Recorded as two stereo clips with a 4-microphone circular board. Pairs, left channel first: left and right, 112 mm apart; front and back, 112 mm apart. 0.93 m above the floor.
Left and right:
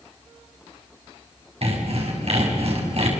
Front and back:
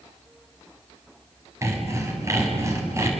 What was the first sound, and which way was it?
Sawing, 115° right.